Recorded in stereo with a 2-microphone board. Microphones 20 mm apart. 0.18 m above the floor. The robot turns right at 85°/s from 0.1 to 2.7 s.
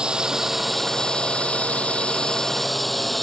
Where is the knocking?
No knocking in this recording.